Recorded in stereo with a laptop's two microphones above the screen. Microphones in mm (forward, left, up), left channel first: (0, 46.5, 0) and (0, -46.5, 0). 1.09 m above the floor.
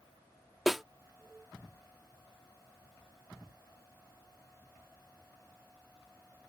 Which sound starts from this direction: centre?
A snare drum, at 0.7 s.